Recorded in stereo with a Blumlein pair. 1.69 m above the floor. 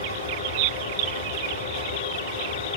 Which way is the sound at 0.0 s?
65° left.